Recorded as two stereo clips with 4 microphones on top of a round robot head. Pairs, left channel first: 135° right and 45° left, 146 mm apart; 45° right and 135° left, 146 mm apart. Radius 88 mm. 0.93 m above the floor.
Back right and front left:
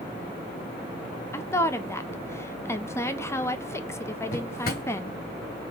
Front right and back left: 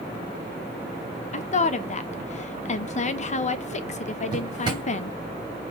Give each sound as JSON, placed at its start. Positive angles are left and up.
{"t": 1.3, "sound": "a woman speaking", "azimuth_deg": -65, "distance_m": 0.7}
{"t": 4.3, "sound": "a drawer", "azimuth_deg": -165, "distance_m": 1.2}